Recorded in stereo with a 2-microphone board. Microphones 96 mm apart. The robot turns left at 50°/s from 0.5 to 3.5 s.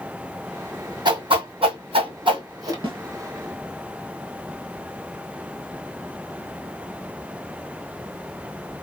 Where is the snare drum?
60° right (ahead or behind), 2.5 m; by 3.0 s 65° right (ahead or behind), 2.5 m.